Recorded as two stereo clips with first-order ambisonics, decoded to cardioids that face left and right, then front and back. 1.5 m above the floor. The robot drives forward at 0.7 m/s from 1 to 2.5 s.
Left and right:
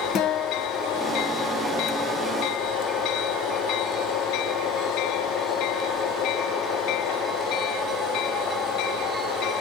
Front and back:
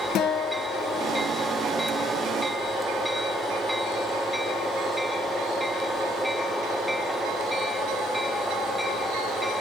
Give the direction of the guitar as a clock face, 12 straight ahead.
11 o'clock.